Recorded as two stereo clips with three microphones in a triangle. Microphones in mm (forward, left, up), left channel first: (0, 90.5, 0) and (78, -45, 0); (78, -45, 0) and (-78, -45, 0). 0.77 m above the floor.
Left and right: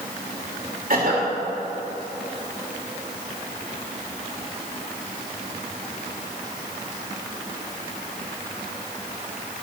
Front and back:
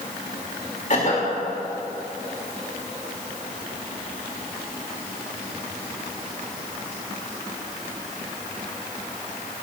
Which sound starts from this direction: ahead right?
A cough, at 0.9 s.